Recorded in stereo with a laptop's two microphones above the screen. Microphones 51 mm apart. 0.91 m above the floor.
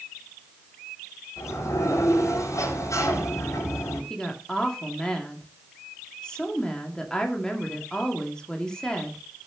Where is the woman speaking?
15° left (ahead or behind), 2 m.